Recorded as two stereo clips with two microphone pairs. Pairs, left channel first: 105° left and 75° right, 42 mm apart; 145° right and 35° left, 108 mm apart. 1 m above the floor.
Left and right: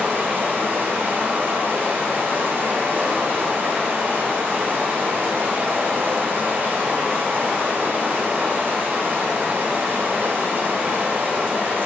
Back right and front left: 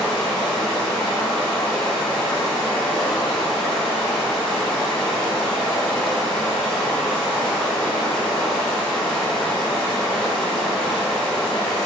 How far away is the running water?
About 1.0 m.